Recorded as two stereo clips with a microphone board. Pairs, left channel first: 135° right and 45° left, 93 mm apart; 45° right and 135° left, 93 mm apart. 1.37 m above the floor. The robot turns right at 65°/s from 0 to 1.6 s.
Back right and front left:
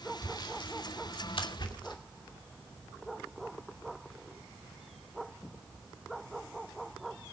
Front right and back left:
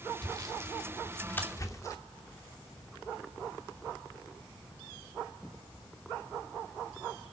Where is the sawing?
170° left, 2.5 m; by 2.0 s 100° right, 2.5 m.